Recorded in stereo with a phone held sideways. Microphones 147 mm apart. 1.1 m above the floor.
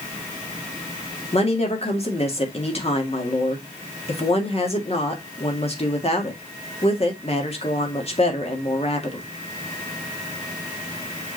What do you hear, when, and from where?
1.3 s a woman speaking: 45° left (ahead or behind), 1.9 m